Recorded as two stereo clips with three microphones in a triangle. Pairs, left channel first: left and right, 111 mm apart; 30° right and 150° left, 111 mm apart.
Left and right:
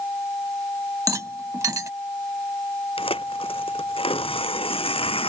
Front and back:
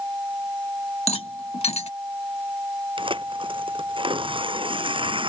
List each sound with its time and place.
1.1 s a rattle: 30° right
3.0 s tearing paper: 115° left